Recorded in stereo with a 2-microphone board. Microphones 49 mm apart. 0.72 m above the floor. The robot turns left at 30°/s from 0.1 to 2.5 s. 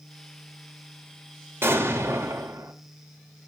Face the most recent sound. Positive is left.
turn(degrees=-75)  # may be behind; listen again after turning